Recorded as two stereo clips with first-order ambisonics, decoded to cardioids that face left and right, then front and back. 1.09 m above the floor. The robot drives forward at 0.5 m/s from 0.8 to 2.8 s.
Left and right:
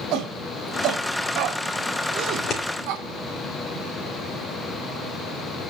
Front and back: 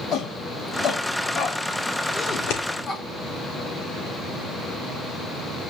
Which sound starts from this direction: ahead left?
Scissors, at 2.3 s.